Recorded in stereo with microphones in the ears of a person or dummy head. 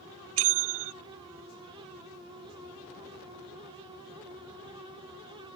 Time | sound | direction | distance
0.4 | a bell | 70° right (ahead or behind) | ?